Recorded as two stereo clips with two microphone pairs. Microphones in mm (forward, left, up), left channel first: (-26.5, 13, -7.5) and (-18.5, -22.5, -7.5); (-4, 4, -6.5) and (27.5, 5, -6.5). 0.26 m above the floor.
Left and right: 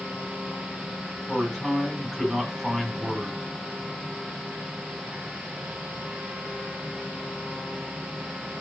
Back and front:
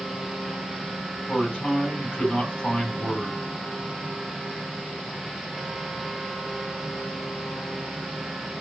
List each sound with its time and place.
1.3 s a man speaking: 145° right, 1.6 m